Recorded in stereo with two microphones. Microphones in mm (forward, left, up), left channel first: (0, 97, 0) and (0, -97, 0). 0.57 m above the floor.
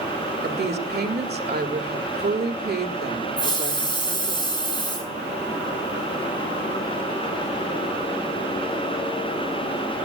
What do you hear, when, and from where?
0.4 s a woman speaking: 55° right (ahead or behind), 2 m
3.4 s a hiss: 25° left (ahead or behind), 5.5 m